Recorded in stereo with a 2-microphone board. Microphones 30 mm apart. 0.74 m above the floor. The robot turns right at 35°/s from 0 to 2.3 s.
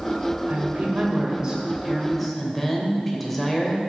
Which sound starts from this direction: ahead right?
A woman speaking, at 0.5 s.